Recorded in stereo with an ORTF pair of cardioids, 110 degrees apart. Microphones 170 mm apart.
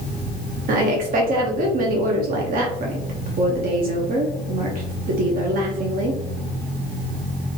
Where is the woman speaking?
55° right, 0.7 m.